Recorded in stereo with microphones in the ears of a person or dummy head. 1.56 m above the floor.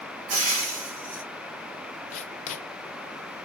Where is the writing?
40° left (ahead or behind), 1.4 m.